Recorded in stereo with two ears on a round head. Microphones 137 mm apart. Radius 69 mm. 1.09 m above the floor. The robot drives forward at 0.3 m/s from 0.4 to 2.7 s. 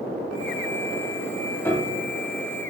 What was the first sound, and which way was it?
A piano, 15° left (ahead or behind).